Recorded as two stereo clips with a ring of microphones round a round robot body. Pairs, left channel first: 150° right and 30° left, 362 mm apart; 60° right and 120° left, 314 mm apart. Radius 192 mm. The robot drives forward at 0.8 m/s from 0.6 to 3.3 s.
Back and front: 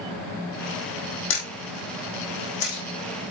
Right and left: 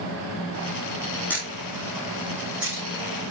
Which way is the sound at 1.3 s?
145° right.